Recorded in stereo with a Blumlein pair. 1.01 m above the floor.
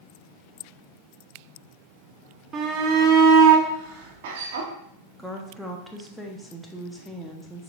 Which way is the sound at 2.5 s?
25° right.